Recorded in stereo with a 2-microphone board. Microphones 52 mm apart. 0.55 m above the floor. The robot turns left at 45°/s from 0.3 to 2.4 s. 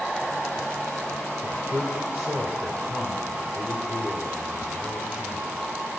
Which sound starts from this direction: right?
A man speaking, at 1.4 s.